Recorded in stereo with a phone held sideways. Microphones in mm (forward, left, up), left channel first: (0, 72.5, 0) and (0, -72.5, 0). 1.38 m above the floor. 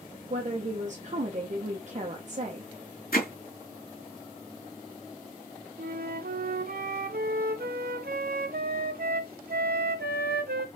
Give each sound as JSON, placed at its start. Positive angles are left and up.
{"t": 0.3, "sound": "a woman speaking", "side_deg": -50, "distance_m": 1.0}
{"t": 3.1, "sound": "hammering", "side_deg": 80, "distance_m": 2.5}
{"t": 5.8, "sound": "a flute", "side_deg": -80, "distance_m": 0.7}